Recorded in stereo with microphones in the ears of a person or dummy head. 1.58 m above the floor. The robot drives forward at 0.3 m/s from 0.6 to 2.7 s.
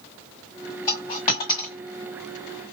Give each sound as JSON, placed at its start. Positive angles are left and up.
{"t": 0.9, "sound": "a dropped coin", "side_deg": 20, "distance_m": 1.4}